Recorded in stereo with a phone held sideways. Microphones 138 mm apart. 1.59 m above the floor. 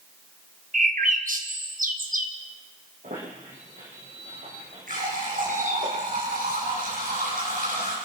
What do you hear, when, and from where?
0.7 s a bird: 75° right (ahead or behind), 1.7 m
3.0 s a squeak: 65° right (ahead or behind), 7.5 m
4.9 s a running tap: 80° right, 9 m